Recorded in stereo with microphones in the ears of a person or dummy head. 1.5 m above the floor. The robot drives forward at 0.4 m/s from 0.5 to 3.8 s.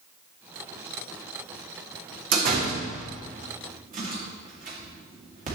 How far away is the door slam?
About 1.6 m.